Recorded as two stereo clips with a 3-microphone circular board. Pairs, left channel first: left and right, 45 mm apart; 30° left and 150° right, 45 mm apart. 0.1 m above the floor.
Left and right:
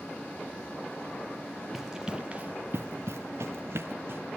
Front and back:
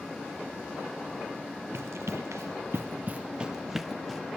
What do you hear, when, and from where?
1.7 s running footsteps: 175° right, 1.2 m; by 4.2 s 60° right, 1.6 m